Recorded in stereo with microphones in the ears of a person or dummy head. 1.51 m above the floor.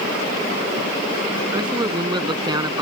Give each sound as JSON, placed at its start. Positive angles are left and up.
{"t": 1.5, "sound": "a man speaking", "side_deg": -20}